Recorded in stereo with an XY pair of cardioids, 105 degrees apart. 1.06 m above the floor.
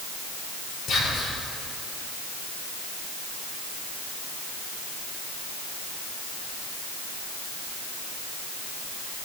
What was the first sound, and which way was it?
Whispering, 65° left.